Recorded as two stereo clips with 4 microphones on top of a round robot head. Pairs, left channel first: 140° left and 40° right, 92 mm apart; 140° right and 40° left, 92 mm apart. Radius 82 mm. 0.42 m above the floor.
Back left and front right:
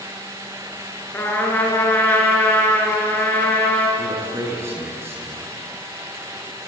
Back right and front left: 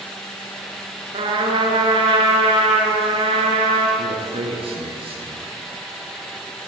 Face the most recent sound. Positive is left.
turn(degrees=25)